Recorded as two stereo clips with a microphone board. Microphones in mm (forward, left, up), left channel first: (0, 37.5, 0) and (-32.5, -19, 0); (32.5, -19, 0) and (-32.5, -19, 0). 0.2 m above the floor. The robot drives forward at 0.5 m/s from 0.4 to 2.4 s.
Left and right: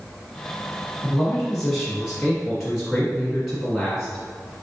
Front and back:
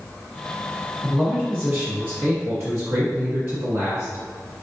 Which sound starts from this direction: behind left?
A man speaking, at 1.0 s.